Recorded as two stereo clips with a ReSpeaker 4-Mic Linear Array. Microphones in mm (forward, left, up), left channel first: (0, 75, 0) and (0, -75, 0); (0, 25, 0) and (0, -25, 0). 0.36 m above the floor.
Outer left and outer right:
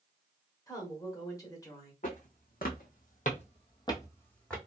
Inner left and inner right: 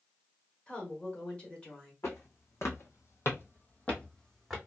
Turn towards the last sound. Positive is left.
turn(degrees=5)  # may be behind; listen again after turning